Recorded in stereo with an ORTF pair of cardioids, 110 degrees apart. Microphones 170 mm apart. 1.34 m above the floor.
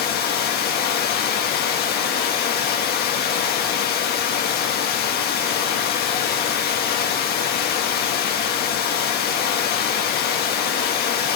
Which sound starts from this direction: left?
Running water, at 0.0 s.